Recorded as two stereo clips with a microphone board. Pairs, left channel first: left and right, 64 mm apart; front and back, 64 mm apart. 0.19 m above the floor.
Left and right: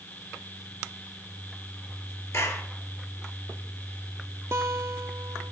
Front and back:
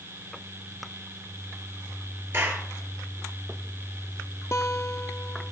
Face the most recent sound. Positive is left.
turn(degrees=-45)